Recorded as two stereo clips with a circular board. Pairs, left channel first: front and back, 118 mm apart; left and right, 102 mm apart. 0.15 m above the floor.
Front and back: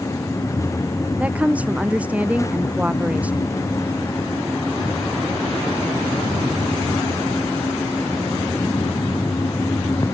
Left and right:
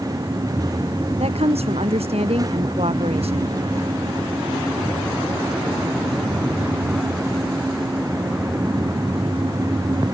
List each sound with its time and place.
1.2 s a woman speaking: 100° right